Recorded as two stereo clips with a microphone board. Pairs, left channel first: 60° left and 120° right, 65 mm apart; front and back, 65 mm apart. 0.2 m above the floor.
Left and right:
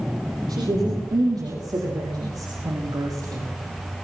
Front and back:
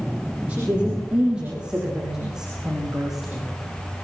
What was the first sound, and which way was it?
A woman speaking, 110° right.